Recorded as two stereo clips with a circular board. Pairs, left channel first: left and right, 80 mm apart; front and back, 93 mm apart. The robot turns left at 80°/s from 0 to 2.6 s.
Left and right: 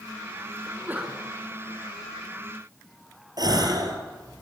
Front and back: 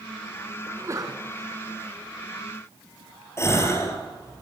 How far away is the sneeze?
About 1.9 m.